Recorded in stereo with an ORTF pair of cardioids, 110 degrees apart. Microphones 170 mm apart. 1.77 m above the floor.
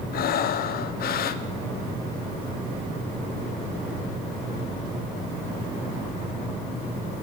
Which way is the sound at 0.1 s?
60° left.